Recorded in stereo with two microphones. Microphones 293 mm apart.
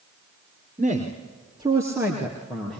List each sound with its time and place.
0.8 s a man speaking: 25° right (ahead or behind), 3 m; by 2.8 s 5° left (ahead or behind), 4 m